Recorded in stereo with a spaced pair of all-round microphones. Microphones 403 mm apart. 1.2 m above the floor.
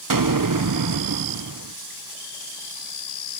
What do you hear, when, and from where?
0.1 s an explosion: 55° right (ahead or behind), 0.7 m